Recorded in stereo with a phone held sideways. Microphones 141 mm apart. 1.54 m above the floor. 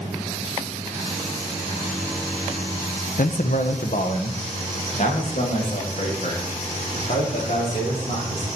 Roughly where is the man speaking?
Left.